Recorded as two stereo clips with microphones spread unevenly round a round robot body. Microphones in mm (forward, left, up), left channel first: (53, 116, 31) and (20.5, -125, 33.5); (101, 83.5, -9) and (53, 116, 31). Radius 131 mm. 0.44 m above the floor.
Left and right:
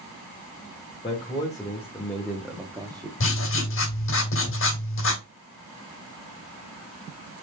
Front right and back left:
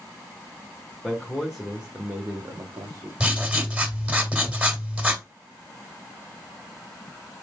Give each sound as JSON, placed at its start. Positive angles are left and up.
{"t": 1.0, "sound": "a man speaking", "azimuth_deg": 15, "distance_m": 1.3}
{"t": 3.2, "sound": "writing", "azimuth_deg": 55, "distance_m": 1.9}